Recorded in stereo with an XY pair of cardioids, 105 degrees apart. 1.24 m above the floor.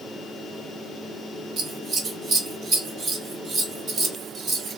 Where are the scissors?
50° right, 1.2 m.